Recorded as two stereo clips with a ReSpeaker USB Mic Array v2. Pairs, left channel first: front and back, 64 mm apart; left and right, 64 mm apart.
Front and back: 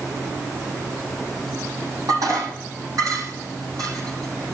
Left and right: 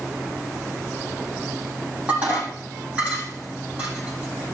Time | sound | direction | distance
2.1 | dishes clattering | 160° right | 7 m